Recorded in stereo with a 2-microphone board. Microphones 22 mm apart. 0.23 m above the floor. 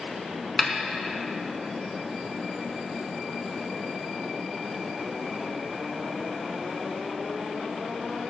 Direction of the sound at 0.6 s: 5° left (ahead or behind).